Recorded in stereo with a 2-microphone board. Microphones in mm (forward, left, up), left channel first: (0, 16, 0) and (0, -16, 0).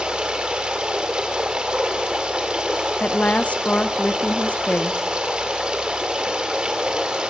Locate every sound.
0.0 s running water: 30° right (ahead or behind), 2 m
3.0 s a woman speaking: 45° left (ahead or behind), 0.7 m